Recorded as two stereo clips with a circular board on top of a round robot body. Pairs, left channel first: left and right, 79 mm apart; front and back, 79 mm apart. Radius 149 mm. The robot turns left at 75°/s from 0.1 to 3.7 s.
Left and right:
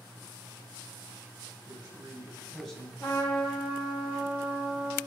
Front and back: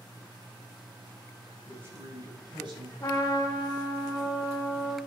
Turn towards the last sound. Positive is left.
turn(degrees=-15)